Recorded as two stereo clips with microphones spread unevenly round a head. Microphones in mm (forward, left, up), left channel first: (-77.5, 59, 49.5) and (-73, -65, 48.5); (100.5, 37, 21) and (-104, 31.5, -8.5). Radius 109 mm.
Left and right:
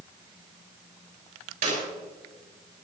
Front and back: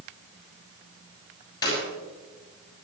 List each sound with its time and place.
1.6 s a clap: 75° right, 7.5 m